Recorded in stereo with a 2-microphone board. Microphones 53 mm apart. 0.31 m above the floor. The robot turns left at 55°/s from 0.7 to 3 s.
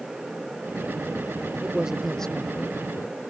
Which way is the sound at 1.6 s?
155° right.